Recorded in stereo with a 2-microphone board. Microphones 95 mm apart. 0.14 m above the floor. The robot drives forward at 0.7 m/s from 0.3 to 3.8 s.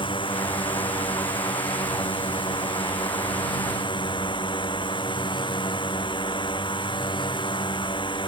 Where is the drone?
65° left (ahead or behind); by 8.3 s 60° left (ahead or behind).